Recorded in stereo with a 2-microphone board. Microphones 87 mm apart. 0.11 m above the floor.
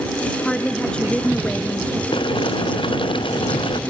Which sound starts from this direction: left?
Boiling, at 2.1 s.